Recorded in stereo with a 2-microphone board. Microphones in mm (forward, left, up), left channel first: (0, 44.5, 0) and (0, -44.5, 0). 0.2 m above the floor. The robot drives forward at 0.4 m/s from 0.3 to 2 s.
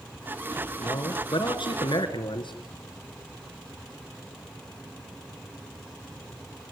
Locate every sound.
0.8 s a man speaking: 65° left (ahead or behind), 3 m